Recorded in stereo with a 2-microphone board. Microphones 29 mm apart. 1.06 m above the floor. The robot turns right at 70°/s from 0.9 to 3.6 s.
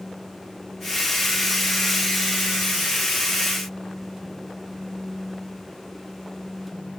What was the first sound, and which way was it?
Only background noise.